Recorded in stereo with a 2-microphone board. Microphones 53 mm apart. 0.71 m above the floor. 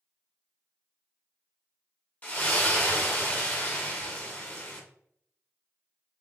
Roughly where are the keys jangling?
I don't hear keys jangling.